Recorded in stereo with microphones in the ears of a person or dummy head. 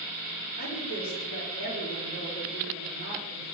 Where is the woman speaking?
50° left (ahead or behind), 2.5 m; by 3.5 s 25° left (ahead or behind), 4.5 m.